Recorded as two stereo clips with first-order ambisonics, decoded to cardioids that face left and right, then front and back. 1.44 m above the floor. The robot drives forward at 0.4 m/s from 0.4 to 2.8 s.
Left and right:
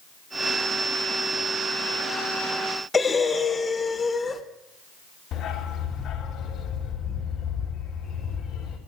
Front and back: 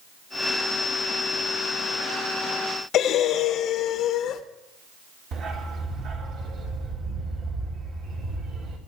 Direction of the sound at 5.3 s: 140° left.